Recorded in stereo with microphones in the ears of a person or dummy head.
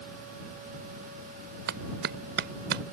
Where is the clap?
60° right (ahead or behind).